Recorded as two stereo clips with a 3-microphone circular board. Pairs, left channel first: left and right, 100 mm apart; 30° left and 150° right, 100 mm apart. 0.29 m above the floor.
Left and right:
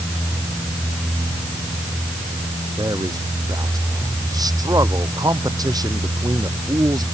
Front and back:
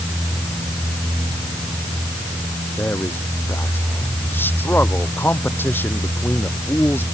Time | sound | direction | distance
2.8 | a man speaking | 40° right | ?